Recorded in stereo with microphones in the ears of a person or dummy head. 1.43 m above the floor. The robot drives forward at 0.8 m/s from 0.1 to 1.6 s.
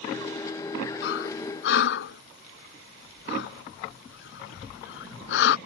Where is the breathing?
60° left (ahead or behind); by 5.6 s 55° left (ahead or behind).